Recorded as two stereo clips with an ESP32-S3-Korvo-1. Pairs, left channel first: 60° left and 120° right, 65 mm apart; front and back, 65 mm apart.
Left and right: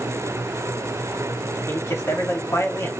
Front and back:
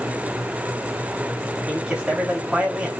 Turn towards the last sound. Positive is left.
turn(degrees=110)